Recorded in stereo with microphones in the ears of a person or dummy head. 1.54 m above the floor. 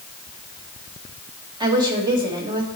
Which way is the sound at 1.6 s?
25° right (ahead or behind).